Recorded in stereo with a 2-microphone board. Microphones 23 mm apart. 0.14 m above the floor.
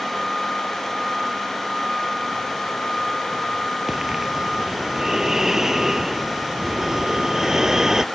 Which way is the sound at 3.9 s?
20° right (ahead or behind).